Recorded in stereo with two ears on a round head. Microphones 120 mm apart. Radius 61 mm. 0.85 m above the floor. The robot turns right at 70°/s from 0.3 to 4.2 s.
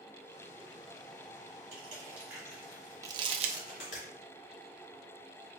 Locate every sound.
1.7 s crushing: 45° right (ahead or behind), 2.5 m; by 4.0 s 60° left (ahead or behind), 2.5 m
3.0 s crumpling: 25° right (ahead or behind), 0.7 m; by 3.6 s 60° right (ahead or behind), 0.7 m